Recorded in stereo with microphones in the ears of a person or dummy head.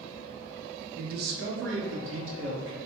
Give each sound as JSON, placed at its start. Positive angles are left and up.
{"t": 1.0, "sound": "a man speaking", "side_deg": -45, "distance_m": 0.5}